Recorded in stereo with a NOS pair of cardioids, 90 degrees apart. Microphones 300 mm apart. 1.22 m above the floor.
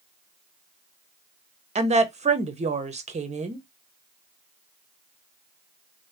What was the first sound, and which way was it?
A woman speaking, 25° right.